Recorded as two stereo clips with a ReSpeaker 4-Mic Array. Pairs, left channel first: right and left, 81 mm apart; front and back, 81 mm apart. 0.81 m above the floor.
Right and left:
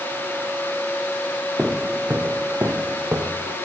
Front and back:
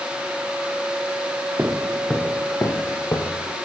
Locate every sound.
1.6 s footsteps: 165° left, 0.9 m; by 3.6 s 35° left, 2 m